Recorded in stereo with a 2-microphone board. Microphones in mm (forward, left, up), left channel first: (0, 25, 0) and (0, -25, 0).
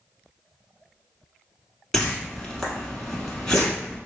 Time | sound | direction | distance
1.9 | a whoosh | 10° left (ahead or behind) | 0.9 m